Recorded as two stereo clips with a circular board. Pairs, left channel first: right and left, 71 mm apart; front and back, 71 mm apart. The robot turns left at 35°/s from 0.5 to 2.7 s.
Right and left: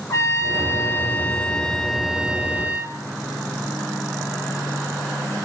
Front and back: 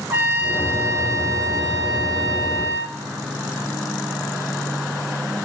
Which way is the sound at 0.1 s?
130° right.